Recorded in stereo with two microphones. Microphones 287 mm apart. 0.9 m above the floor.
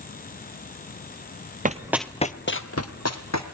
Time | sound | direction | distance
1.6 | running footsteps | 30° right (ahead or behind) | 1.1 m